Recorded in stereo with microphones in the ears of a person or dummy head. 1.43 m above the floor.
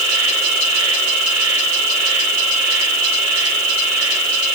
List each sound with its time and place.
0.0 s an insect: 85° right, 4.5 m